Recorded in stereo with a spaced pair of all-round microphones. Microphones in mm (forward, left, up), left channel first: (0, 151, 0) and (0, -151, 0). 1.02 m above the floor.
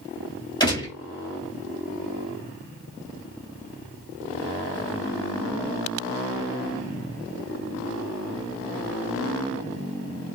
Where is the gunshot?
15° left (ahead or behind), 2.5 m.